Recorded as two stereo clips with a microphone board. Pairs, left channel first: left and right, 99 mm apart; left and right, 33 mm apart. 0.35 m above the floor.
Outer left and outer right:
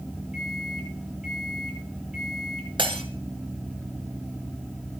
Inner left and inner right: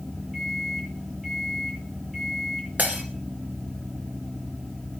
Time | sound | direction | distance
0.3 | a microwave | 5° right (ahead or behind) | 9.5 m
2.8 | breaking glass | 60° right (ahead or behind) | 2.5 m